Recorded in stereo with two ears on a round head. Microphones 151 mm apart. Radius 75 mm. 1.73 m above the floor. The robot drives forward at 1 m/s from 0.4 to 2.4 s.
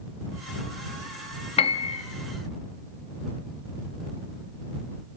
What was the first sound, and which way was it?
A piano, 35° left (ahead or behind).